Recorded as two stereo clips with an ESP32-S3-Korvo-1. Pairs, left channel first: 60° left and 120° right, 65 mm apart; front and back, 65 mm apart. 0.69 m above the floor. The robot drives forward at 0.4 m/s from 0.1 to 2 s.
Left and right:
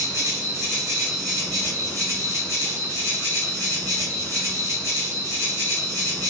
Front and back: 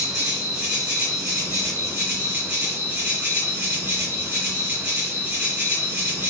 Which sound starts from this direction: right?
An insect, at 0.0 s.